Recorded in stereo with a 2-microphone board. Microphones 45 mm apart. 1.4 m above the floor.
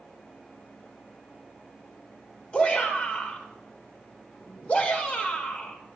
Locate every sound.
2.5 s a shout: 25° left (ahead or behind), 5 m